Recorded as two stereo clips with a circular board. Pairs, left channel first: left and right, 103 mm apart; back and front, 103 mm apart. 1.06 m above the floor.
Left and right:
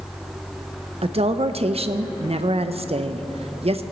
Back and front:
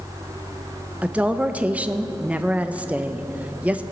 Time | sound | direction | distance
1.0 | a woman speaking | 75° right | 0.5 m